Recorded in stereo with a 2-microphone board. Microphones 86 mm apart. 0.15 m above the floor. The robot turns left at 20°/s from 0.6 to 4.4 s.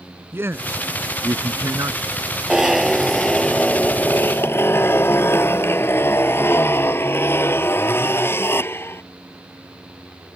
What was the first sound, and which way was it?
A man speaking, 30° right (ahead or behind).